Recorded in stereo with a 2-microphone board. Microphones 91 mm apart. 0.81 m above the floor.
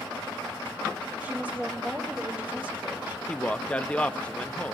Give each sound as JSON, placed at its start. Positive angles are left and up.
{"t": 1.2, "sound": "a woman speaking", "side_deg": -15, "distance_m": 2.5}
{"t": 3.3, "sound": "a man speaking", "side_deg": 15, "distance_m": 0.8}